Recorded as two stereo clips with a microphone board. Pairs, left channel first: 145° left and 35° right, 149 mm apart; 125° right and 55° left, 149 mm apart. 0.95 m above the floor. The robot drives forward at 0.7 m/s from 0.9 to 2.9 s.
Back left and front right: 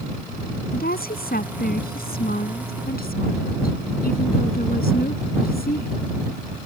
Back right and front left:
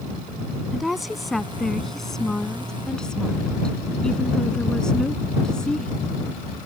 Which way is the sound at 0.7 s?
145° left.